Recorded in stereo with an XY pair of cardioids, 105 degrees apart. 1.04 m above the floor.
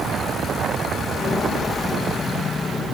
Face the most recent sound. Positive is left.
turn(degrees=35)